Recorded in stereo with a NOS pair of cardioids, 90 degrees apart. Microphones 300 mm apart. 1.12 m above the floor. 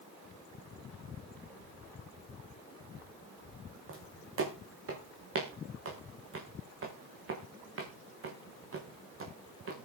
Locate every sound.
3.9 s footsteps: 45° right, 6 m